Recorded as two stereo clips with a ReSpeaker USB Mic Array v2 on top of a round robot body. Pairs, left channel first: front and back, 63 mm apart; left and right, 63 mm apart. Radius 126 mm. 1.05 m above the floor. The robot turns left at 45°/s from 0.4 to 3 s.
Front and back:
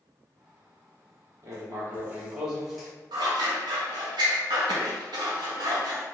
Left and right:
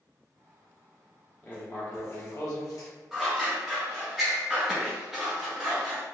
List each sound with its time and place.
1.4 s writing: 150° left, 1.4 m; by 2.9 s 85° left, 1.4 m
3.1 s scissors: 175° right, 0.5 m